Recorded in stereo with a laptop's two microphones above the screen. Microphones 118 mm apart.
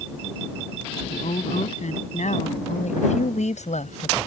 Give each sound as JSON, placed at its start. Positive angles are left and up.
{"t": 1.1, "sound": "a woman speaking", "side_deg": 85}